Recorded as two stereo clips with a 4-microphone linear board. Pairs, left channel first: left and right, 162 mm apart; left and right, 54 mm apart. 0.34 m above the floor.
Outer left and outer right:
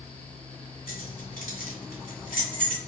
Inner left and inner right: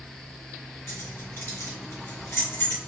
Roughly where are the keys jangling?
Left.